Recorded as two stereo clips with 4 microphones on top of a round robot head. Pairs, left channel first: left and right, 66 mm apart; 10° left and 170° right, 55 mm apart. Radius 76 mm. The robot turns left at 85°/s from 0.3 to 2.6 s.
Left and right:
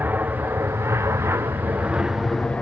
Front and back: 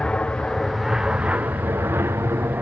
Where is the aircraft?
50° right; by 2.6 s 155° left.